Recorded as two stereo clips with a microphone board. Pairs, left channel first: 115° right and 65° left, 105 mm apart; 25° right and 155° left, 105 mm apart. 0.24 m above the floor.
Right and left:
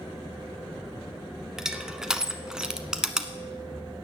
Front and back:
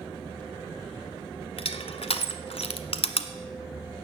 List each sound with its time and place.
1.6 s crushing: 15° right, 0.9 m